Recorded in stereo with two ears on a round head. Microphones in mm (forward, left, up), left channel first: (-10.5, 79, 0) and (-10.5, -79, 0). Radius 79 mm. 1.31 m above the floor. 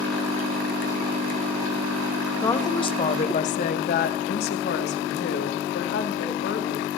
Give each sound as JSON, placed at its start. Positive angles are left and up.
{"t": 2.4, "sound": "a woman speaking", "side_deg": 15, "distance_m": 1.1}